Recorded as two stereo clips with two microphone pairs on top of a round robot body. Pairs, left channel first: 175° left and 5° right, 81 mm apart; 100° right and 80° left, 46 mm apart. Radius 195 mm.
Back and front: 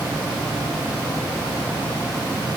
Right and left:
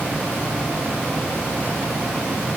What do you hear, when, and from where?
Only background noise.